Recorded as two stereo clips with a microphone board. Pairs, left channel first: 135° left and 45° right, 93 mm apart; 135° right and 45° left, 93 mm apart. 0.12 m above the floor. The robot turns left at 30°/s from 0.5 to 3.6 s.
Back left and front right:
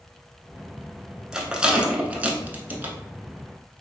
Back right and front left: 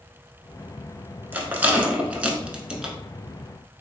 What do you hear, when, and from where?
1.3 s a rattle: 25° left, 0.7 m; by 3.0 s 25° right, 0.7 m